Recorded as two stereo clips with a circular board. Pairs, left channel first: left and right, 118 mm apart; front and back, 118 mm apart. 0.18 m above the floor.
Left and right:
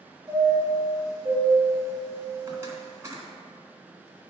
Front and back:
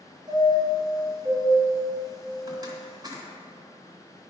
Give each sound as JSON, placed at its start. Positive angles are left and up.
{"t": 0.3, "sound": "a chime", "azimuth_deg": -145, "distance_m": 1.8}